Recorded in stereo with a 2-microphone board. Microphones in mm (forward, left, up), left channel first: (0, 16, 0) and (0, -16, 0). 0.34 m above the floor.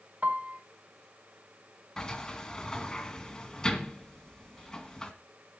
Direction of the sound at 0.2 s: 55° right (ahead or behind).